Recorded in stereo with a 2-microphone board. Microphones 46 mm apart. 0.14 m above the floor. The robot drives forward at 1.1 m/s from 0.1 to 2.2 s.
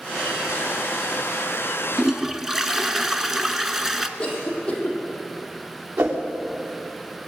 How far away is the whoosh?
About 3.5 m.